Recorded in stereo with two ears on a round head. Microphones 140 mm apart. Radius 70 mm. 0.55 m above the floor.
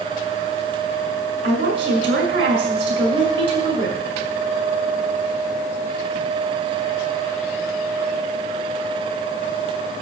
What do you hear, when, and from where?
1.4 s a woman speaking: 35° right (ahead or behind), 6 m